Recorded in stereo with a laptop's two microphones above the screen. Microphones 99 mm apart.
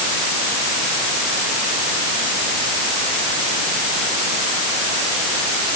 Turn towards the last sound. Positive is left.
No sound to turn to.